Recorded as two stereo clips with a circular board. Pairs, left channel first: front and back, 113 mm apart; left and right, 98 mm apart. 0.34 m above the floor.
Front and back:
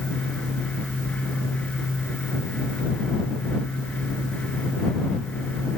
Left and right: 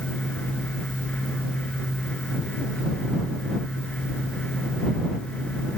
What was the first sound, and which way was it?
Only background noise.